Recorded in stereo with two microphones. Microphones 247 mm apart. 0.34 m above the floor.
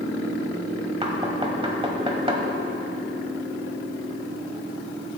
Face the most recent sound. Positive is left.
turn(degrees=-20)  # may be behind; listen again after turning